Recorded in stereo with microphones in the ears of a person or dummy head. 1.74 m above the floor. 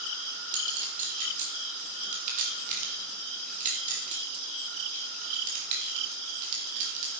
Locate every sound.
0.5 s a clink: 45° right (ahead or behind), 2.5 m